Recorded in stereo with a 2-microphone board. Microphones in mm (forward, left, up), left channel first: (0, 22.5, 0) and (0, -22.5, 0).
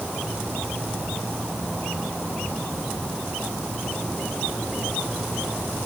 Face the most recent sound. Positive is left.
No sound to turn to.